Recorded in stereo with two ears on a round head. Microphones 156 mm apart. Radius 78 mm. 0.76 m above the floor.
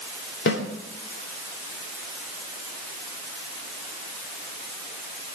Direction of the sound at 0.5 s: 70° left (ahead or behind).